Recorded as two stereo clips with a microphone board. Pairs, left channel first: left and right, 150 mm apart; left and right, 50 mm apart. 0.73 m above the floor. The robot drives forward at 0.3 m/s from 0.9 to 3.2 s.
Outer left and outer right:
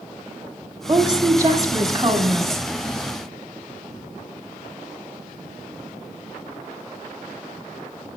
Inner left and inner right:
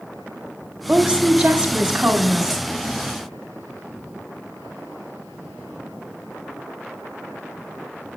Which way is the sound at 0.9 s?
25° right (ahead or behind).